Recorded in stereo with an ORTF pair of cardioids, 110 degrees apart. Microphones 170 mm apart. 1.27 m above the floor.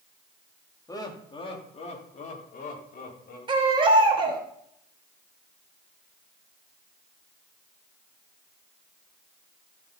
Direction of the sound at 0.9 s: 20° left.